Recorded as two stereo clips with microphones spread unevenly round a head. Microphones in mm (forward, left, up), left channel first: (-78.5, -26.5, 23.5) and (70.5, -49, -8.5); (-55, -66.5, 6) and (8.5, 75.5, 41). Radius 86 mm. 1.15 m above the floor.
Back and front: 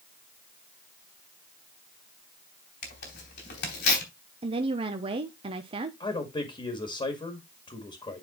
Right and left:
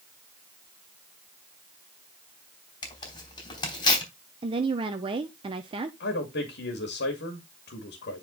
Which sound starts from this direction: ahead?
A woman speaking, at 4.4 s.